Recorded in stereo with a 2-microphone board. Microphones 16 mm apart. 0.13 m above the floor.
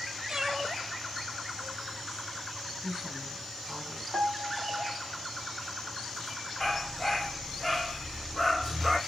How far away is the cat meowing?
About 1.0 m.